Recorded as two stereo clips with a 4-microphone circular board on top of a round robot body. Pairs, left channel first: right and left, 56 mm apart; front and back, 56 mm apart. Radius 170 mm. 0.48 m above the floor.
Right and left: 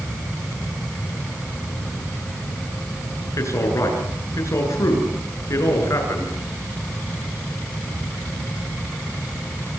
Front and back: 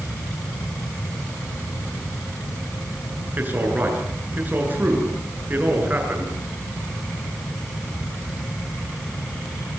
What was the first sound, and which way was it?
A man speaking, 120° right.